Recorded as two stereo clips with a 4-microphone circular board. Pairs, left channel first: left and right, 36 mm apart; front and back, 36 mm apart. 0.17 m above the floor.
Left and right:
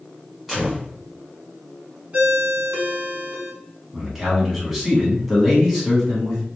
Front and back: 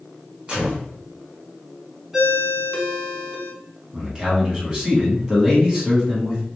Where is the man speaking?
165° right, 1.1 m.